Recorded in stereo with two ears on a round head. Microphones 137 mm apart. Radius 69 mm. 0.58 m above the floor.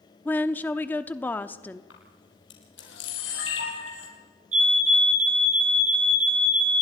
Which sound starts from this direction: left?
A camera shutter, at 1.9 s.